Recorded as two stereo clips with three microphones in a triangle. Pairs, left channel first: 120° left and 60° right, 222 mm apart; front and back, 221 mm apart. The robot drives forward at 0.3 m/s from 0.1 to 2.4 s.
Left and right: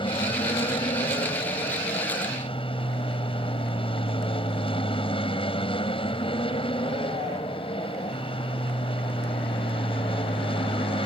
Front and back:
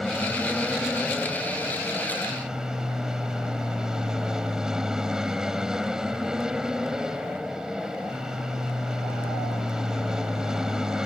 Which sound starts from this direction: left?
An aircraft, at 0.0 s.